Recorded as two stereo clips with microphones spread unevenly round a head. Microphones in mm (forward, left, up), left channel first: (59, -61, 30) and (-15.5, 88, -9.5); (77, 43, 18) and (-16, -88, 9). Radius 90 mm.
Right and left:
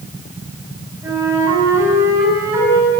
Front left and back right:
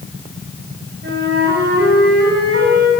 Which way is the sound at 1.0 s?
165° right.